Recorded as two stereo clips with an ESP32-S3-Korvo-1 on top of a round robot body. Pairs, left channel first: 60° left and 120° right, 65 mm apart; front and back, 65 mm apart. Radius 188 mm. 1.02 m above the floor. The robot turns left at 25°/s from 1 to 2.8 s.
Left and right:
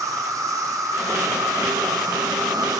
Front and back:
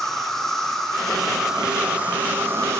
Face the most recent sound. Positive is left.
turn(degrees=-130)